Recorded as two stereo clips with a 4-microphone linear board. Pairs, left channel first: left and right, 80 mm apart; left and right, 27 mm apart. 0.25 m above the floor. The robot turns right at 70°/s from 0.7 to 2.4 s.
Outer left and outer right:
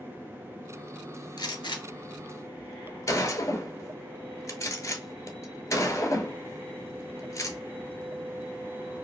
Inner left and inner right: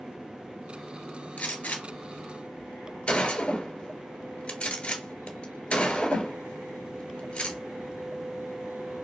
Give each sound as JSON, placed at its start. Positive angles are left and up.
{"t": 1.4, "sound": "a gunshot", "side_deg": 65, "distance_m": 0.8}